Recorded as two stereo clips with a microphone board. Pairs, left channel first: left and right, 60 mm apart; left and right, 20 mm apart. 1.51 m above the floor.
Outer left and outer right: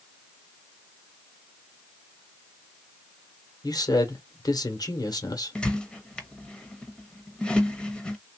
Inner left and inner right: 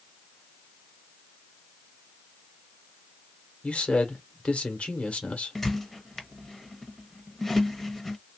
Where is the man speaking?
90° left, 1.2 m.